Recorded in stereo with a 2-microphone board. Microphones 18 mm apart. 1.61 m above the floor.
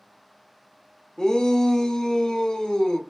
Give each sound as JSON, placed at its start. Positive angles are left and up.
{"t": 1.2, "sound": "a shout", "side_deg": 40, "distance_m": 1.0}